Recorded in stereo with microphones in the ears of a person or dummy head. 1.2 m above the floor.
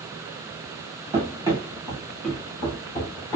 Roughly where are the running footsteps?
Right.